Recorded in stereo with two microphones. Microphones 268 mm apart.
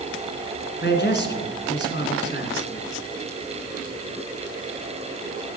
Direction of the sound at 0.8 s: 40° left (ahead or behind).